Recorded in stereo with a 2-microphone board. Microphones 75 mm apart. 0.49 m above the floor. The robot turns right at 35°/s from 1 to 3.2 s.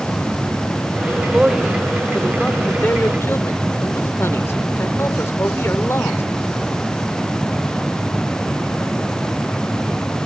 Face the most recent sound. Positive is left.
turn(degrees=50)